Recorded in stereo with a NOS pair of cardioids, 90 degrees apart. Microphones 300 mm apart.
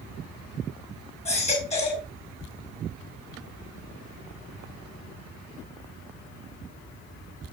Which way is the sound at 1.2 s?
20° left.